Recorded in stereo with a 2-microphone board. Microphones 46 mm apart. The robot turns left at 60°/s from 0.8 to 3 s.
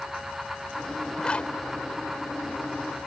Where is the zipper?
20° left (ahead or behind); by 3.1 s 45° left (ahead or behind).